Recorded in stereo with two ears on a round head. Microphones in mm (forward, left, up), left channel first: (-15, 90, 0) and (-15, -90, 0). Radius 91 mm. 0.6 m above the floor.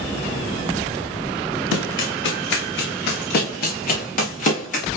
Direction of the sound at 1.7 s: 75° left (ahead or behind).